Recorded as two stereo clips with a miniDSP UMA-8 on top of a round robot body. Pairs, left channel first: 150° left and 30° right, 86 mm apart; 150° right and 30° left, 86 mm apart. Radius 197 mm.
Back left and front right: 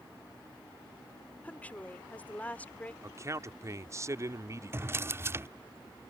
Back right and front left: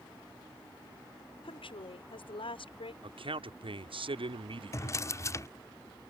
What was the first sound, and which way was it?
A woman speaking, 135° right.